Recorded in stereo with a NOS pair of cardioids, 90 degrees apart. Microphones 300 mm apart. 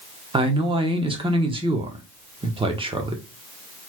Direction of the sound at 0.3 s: 20° right.